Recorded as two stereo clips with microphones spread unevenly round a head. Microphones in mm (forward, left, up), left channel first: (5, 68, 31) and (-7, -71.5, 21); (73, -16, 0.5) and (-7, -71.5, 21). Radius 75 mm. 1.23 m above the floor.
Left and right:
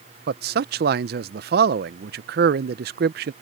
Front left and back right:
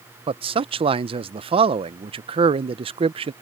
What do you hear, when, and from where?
0.3 s a man speaking: 110° right